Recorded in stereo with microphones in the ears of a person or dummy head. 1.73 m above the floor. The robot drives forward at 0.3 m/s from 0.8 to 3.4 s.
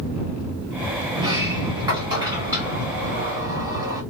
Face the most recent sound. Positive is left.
turn(degrees=-15)  # may be behind; listen again after turning